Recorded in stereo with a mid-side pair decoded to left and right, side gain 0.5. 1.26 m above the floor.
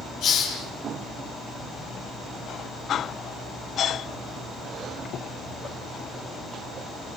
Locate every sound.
0.2 s a hiss: 70° left, 8.5 m